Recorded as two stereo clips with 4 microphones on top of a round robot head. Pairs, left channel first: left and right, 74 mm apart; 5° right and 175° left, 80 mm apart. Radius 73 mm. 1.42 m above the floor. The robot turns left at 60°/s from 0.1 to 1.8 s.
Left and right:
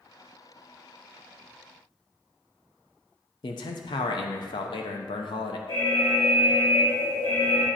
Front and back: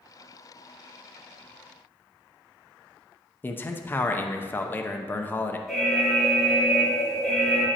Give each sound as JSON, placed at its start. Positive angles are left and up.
{"t": 3.4, "sound": "a man speaking", "azimuth_deg": 60, "distance_m": 0.5}
{"t": 5.7, "sound": "an alarm", "azimuth_deg": 85, "distance_m": 2.5}